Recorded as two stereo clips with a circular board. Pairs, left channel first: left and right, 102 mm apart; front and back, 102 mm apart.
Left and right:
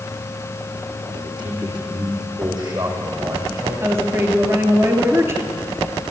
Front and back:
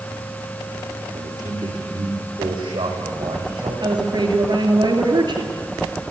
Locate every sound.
1.1 s a man speaking: 130° right, 7 m; by 3.7 s 145° right, 8 m
3.8 s a woman speaking: 150° right, 2.5 m